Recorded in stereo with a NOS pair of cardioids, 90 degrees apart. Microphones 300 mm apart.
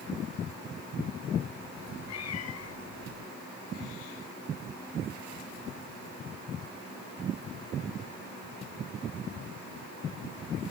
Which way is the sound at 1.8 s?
60° left.